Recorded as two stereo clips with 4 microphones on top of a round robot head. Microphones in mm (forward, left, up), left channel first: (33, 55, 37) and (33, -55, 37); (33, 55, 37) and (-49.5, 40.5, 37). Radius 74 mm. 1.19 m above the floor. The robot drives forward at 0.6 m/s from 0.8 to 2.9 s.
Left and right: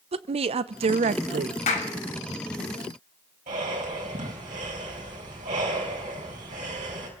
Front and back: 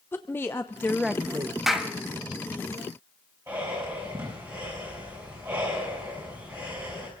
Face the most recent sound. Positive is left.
turn(degrees=-100)